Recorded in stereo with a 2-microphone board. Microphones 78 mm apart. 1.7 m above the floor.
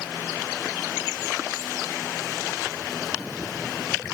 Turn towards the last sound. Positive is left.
No sound to turn to.